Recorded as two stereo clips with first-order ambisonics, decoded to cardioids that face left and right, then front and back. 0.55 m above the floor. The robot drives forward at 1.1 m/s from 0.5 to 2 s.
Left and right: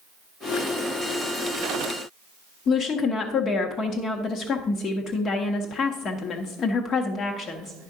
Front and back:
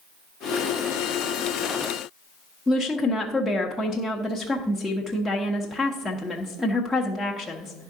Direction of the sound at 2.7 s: 80° left.